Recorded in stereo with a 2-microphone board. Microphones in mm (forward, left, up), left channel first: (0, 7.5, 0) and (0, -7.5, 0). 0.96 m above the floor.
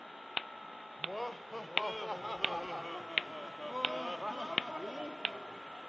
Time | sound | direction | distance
1.0 | laughter | 5° left (ahead or behind) | ?